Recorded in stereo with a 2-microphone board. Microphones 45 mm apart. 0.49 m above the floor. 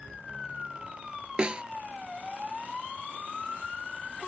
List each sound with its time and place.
1.4 s a snare drum: 25° right (ahead or behind)